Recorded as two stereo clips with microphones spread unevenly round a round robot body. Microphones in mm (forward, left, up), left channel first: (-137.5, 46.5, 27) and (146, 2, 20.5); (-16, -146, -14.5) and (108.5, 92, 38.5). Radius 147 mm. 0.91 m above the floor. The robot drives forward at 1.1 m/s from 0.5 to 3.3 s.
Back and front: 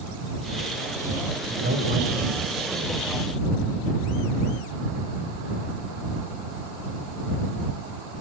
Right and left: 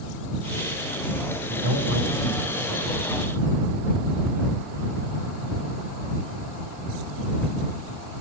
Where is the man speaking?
50° left, 4.5 m; by 3.0 s 70° left, 3.5 m.